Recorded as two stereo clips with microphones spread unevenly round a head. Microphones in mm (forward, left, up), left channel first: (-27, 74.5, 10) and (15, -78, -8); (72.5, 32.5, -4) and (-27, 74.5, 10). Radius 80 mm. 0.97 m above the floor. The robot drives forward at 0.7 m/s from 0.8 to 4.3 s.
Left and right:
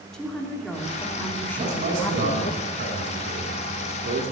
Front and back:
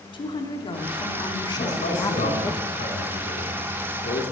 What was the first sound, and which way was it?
A woman speaking, 20° left.